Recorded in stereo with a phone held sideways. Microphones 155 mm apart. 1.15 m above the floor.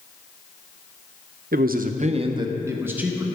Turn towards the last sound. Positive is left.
turn(degrees=-5)  # may be behind; listen again after turning